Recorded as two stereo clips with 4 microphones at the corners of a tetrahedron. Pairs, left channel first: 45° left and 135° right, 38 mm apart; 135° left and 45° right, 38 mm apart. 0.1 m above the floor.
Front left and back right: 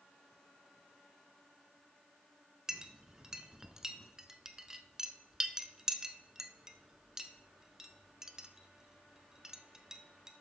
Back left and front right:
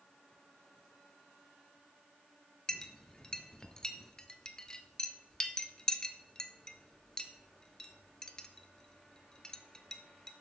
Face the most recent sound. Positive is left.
turn(degrees=175)